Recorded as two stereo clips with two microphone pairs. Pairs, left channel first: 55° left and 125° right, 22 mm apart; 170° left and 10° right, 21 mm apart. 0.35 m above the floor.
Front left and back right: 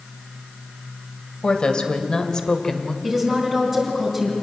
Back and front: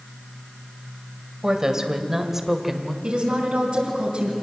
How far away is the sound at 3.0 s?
About 3.5 m.